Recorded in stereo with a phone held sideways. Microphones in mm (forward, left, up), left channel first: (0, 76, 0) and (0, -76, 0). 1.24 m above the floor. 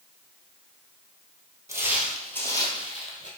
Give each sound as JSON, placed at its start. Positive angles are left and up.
{"t": 1.7, "sound": "footsteps", "side_deg": -20, "distance_m": 1.4}